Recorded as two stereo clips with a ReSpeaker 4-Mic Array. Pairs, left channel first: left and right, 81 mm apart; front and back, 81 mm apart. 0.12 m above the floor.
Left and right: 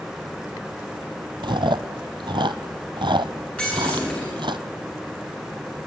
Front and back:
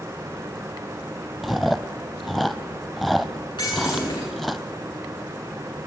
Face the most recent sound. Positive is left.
turn(degrees=25)